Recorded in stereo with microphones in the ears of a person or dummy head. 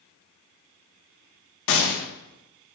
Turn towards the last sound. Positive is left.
turn(degrees=70)  # may be behind; listen again after turning